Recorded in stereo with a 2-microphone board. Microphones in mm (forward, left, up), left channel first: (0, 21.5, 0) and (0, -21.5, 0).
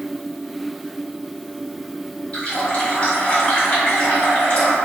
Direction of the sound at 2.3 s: 30° left (ahead or behind).